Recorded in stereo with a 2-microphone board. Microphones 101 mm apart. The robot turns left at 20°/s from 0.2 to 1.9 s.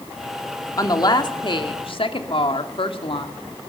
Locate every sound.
0.8 s a woman speaking: 35° left (ahead or behind), 2.5 m; by 3.3 s 55° left (ahead or behind), 2.5 m